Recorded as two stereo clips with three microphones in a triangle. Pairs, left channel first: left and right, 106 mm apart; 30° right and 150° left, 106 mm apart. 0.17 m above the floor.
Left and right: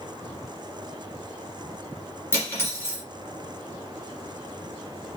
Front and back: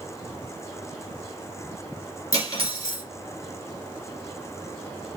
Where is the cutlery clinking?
20° left, 1.9 m.